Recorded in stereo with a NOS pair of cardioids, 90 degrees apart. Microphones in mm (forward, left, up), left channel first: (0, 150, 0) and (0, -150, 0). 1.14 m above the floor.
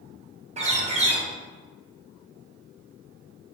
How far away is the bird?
About 0.7 m.